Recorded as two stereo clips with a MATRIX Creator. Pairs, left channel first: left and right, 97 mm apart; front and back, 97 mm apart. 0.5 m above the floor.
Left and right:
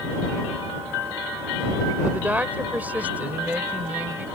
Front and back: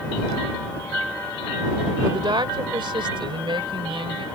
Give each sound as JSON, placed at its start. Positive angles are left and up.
{"t": 2.0, "sound": "a woman speaking", "azimuth_deg": -160}